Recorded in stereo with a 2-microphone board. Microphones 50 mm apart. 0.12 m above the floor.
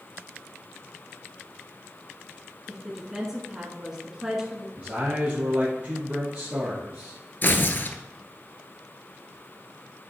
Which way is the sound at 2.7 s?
10° right (ahead or behind).